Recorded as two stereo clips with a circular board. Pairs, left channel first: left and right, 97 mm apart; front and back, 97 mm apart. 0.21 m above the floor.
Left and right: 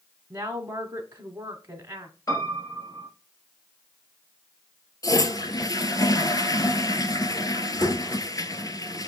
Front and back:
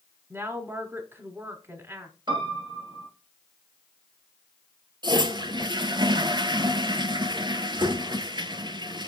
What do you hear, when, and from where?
0.3 s a woman speaking: 135° right, 1.2 m
2.3 s a piano: 140° left, 2.5 m
5.0 s a toilet flushing: 140° left, 0.7 m